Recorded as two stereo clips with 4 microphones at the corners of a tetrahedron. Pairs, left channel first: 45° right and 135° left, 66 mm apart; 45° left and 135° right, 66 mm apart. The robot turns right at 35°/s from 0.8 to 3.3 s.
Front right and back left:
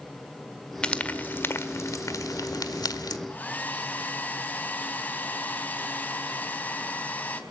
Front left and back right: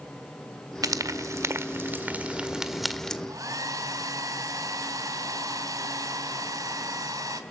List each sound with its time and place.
0.8 s frying: 120° right, 1.7 m; by 3.2 s 35° right, 1.7 m
3.3 s a hair dryer: 110° right, 3 m; by 7.4 s 105° right, 3 m